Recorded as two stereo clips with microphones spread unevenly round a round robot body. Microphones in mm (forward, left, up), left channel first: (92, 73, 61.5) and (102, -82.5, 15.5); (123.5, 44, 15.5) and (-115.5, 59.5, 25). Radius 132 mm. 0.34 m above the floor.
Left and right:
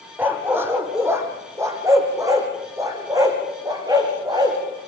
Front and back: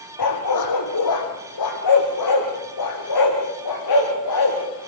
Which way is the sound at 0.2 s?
5° right.